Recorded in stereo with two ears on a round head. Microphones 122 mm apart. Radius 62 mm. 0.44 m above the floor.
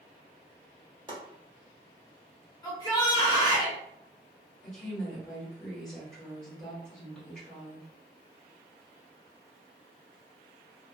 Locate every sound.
1.1 s chopping: 35° right (ahead or behind), 1.1 m
2.6 s a shout: 30° left (ahead or behind), 1.2 m
4.6 s a woman speaking: 5° left (ahead or behind), 1.6 m